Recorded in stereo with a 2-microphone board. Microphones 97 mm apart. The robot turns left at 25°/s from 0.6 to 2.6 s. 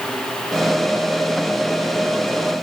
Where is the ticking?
I don't hear ticking.